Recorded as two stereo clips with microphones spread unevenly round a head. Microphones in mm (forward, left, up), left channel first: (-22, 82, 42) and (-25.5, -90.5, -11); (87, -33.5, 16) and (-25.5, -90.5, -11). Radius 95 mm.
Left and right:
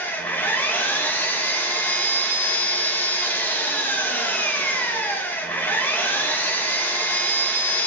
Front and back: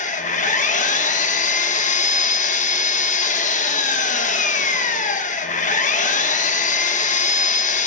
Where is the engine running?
10° left, 1.7 m.